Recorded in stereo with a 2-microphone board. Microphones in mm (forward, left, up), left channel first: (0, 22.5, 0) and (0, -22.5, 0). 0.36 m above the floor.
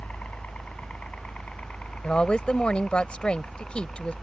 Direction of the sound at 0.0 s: 35° left (ahead or behind).